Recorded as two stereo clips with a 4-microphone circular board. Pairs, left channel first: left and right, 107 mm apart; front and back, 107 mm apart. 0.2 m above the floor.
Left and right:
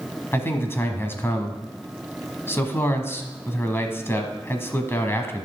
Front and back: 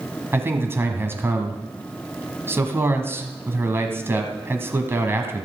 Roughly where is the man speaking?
Behind left.